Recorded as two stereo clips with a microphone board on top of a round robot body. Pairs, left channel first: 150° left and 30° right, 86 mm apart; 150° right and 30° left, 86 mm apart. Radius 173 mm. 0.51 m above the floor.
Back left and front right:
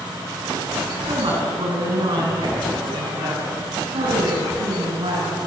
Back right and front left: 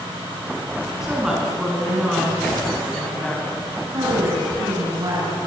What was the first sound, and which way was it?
A woman speaking, 55° right.